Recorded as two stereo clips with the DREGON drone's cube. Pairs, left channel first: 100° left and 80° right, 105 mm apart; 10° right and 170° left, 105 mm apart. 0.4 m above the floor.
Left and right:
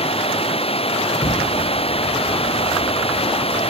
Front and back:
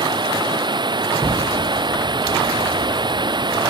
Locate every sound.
0.0 s running water: 125° left
1.2 s an explosion: 95° left